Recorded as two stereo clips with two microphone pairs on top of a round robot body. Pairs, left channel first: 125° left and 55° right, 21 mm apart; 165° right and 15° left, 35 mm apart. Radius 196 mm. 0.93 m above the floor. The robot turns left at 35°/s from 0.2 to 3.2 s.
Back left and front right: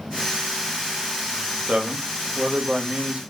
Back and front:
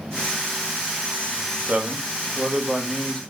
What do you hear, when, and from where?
1.7 s a man speaking: 40° right, 1.2 m; by 3.2 s 95° right, 1.2 m